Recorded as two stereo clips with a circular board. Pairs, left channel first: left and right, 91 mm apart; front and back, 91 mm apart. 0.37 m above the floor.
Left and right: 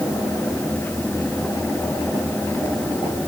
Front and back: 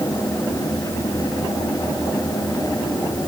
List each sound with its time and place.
Only background noise.